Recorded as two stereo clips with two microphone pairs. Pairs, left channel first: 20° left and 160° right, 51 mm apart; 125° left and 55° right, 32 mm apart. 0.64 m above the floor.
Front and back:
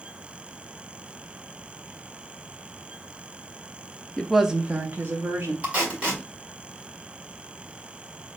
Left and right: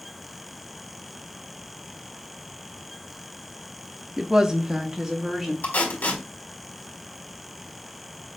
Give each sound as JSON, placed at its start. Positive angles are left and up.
{"t": 4.2, "sound": "a woman speaking", "azimuth_deg": -30, "distance_m": 0.5}
{"t": 5.6, "sound": "tape being pulled", "azimuth_deg": 135, "distance_m": 1.9}